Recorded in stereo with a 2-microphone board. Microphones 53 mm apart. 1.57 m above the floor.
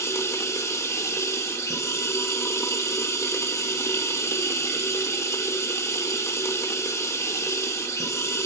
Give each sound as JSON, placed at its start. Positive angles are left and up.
{"t": 0.0, "sound": "running water", "side_deg": 75, "distance_m": 2.0}